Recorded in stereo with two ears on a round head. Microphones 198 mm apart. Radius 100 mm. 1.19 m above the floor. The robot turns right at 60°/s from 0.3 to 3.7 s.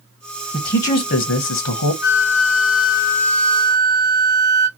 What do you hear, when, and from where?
0.5 s a man speaking: 15° left, 0.6 m; by 1.9 s 100° left, 0.6 m
2.0 s a flute: 60° left, 0.6 m; by 4.7 s 160° left, 0.6 m